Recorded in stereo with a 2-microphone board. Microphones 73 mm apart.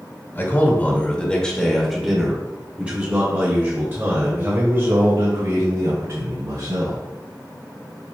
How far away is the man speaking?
About 1.5 m.